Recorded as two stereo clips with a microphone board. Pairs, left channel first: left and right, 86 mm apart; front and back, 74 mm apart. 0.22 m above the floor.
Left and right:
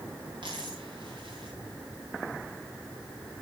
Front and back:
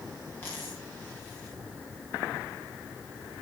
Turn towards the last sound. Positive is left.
turn(degrees=-65)